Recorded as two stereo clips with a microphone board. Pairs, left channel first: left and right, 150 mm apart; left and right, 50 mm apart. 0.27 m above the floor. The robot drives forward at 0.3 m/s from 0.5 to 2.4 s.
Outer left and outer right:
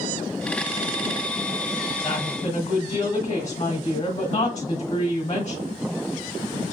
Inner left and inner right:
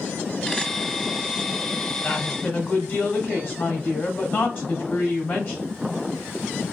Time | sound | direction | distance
2.0 | a woman speaking | 35° left (ahead or behind) | 1.1 m